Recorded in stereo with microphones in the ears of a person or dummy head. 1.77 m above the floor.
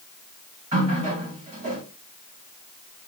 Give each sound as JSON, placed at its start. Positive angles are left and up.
{"t": 0.7, "sound": "a running tap", "side_deg": -40, "distance_m": 1.6}